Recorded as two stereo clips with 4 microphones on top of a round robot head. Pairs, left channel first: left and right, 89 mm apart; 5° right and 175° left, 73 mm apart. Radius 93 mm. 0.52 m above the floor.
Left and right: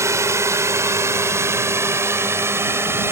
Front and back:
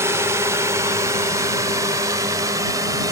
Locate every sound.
0.0 s a drone: 140° right; by 3.1 s 150° right